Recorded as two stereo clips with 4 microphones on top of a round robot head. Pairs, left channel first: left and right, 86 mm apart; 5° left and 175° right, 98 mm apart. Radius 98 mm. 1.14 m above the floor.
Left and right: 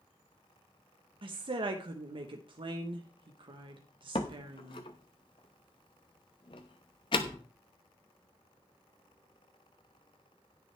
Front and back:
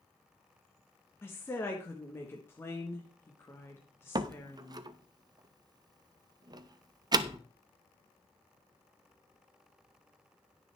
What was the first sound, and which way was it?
A woman speaking, 65° right.